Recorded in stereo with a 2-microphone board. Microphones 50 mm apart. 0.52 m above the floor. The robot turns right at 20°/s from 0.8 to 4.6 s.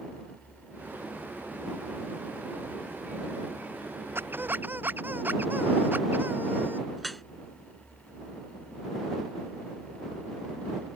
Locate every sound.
4.2 s a squeak: 45° right (ahead or behind); by 6.9 s 35° right (ahead or behind)
7.0 s dripping: 5° left (ahead or behind)